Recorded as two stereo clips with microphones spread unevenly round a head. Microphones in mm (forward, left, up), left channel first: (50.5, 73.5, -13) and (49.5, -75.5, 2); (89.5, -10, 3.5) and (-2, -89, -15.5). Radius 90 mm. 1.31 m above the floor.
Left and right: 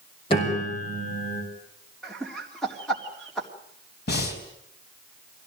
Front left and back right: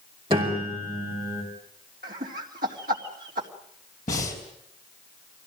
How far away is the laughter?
About 3.5 m.